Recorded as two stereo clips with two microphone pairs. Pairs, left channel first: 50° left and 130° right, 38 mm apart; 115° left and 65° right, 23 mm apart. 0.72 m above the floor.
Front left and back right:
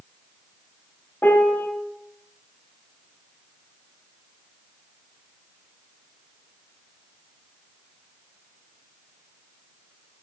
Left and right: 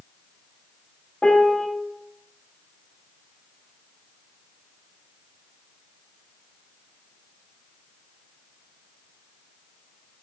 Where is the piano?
65° left, 1.0 m.